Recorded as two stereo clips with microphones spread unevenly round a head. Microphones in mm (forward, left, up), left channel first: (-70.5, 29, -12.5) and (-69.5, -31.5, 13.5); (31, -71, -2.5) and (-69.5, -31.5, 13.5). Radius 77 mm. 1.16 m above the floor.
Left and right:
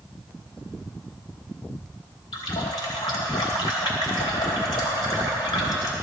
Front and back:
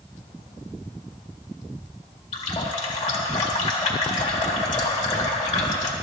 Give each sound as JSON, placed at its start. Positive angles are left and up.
{"t": 2.3, "sound": "a running tap", "azimuth_deg": 45, "distance_m": 1.6}